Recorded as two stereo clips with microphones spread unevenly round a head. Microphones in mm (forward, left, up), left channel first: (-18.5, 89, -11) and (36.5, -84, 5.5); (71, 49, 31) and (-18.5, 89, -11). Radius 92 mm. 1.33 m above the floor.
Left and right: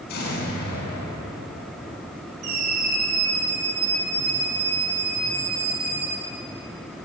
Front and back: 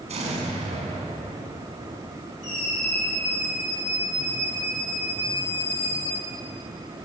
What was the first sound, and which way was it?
An explosion, 145° left.